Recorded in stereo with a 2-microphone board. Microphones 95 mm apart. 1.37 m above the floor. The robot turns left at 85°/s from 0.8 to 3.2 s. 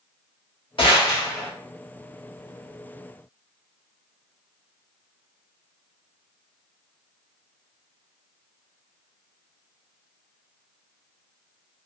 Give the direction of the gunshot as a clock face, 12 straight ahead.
10 o'clock.